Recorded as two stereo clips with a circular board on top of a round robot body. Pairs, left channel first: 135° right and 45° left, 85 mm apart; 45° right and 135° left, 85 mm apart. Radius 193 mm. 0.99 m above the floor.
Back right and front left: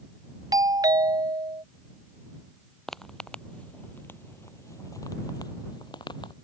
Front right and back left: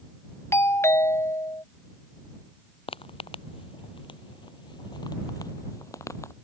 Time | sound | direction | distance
0.5 | a doorbell | 10° left | ?
2.9 | footsteps | 50° right | ?